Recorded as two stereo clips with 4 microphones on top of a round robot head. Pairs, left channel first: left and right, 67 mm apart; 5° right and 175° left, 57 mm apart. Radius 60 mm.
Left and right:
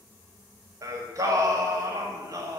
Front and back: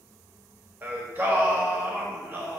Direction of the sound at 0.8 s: 130° right.